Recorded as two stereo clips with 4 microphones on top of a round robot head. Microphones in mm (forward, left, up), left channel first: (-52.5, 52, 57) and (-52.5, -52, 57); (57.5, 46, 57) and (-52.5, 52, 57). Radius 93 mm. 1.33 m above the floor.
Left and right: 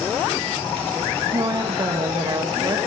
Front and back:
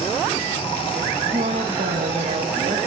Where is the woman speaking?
145° right, 1.8 m.